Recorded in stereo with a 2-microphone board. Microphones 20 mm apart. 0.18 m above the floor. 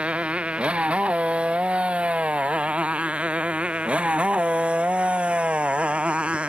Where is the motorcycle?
80° right; by 6.5 s 75° right (ahead or behind).